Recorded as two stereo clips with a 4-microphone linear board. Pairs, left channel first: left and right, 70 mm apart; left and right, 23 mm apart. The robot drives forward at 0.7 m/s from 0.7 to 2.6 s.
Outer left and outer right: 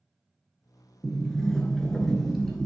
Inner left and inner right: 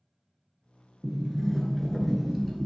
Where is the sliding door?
5° left (ahead or behind), 0.7 m.